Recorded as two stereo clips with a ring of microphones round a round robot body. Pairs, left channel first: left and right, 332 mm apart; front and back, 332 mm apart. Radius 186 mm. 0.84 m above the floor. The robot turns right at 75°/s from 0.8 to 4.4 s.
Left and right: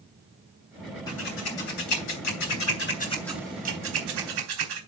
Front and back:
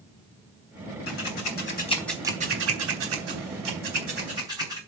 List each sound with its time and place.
1.1 s scissors: 10° left, 4 m; by 4.8 s 100° right, 4 m